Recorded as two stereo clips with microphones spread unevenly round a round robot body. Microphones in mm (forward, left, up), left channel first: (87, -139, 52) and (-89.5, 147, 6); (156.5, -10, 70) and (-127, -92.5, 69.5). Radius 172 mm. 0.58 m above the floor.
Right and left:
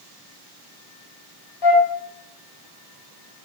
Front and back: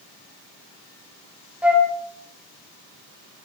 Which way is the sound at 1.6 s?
80° right.